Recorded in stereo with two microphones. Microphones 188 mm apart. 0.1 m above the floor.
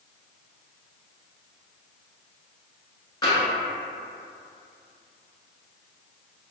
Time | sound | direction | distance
3.2 | tapping | 20° left (ahead or behind) | 1.0 m